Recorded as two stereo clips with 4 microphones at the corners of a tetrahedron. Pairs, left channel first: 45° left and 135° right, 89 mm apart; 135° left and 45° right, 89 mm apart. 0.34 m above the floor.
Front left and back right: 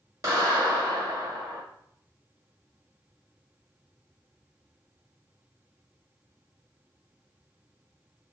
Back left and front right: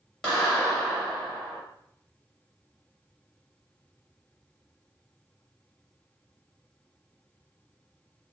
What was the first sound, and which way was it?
A clap, 150° right.